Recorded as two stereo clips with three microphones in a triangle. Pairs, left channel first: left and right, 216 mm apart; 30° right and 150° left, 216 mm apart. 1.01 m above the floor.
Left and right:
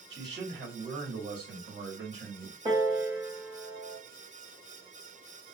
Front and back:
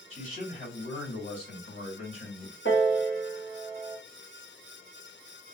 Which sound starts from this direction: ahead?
A piano, at 2.6 s.